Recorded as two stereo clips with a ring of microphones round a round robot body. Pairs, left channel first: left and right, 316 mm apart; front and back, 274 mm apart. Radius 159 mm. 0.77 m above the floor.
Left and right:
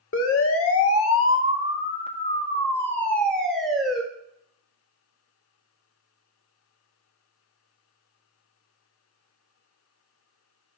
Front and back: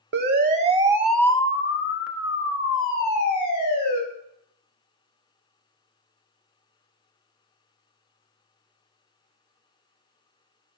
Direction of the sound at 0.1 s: 135° left.